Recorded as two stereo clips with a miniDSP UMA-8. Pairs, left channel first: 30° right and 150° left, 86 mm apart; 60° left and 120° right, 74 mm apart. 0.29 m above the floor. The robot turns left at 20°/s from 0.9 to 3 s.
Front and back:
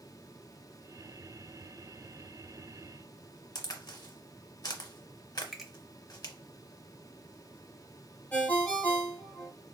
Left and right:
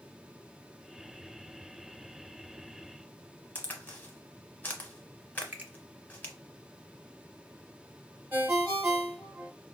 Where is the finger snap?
125° right, 0.7 m.